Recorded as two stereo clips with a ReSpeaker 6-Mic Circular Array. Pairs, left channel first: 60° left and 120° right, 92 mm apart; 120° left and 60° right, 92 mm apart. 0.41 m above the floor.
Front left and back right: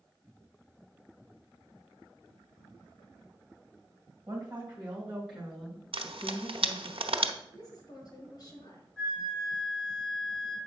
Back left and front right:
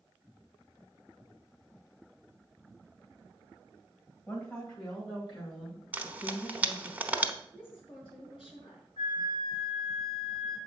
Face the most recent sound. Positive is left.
turn(degrees=145)